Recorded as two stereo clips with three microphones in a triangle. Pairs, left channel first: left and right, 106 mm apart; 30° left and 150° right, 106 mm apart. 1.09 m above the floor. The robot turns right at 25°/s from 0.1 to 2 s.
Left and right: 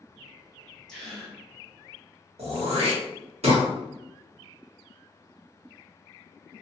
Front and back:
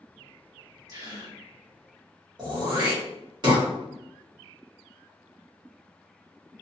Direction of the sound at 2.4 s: 105° right.